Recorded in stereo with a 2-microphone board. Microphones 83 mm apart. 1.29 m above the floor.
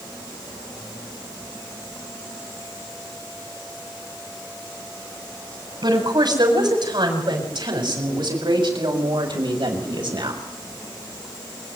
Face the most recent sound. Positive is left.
turn(degrees=-80)